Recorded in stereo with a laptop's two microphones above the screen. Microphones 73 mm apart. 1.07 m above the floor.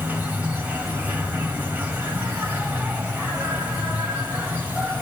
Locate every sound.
0.0 s an insect: 20° right (ahead or behind), 1.8 m